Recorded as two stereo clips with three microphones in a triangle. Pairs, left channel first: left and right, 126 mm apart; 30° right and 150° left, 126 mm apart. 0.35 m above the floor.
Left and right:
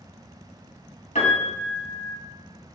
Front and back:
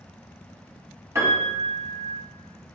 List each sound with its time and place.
1.1 s a piano: 85° left, 2.5 m